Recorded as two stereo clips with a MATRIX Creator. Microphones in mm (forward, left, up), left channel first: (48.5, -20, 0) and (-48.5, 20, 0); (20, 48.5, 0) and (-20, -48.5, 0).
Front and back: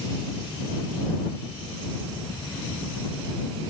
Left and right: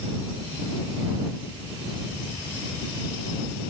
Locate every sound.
Only background noise.